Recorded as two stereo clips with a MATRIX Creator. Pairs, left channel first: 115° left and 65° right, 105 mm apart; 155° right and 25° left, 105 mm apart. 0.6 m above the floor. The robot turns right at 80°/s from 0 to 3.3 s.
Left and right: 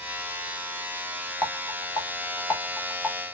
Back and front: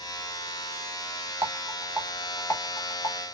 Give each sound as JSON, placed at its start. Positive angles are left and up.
{"t": 1.4, "sound": "a rattle", "azimuth_deg": 55, "distance_m": 1.4}